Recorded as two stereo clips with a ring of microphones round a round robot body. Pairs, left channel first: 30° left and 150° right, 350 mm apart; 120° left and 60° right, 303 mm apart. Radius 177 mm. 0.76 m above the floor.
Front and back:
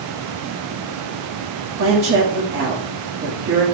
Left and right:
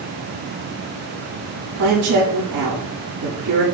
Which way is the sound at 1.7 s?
95° right.